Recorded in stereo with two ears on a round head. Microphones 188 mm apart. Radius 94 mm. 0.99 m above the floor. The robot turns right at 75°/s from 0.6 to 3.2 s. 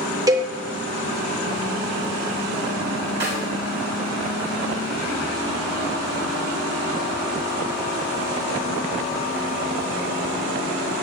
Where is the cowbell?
15° right (ahead or behind), 1.3 m.